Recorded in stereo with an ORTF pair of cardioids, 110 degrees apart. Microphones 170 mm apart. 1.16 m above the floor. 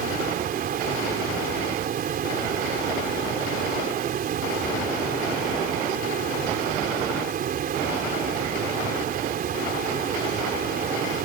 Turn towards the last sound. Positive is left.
turn(degrees=-55)